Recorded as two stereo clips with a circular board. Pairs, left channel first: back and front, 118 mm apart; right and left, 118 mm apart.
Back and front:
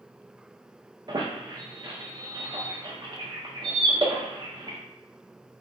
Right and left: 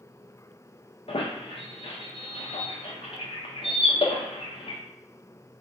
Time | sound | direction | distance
1.1 | a squeak | 55° right | 0.5 m